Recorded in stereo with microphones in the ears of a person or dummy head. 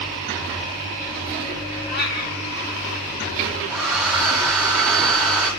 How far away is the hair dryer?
About 4 m.